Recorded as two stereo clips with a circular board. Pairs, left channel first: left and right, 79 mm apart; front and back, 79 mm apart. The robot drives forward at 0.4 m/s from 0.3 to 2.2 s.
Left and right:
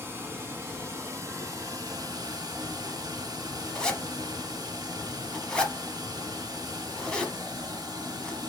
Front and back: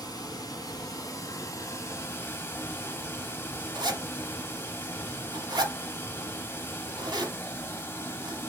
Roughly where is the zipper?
Behind.